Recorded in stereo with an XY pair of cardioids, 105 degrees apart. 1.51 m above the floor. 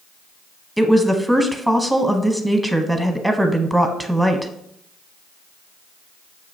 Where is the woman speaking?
5° right, 0.8 m.